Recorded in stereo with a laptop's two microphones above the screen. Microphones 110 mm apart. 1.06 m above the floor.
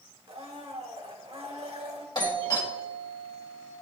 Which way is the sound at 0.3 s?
65° right (ahead or behind).